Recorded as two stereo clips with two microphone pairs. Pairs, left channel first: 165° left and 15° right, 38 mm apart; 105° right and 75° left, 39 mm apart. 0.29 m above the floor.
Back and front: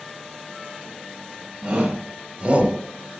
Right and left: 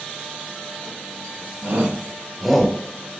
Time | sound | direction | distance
1.6 | a shout | 45° left | 1.5 m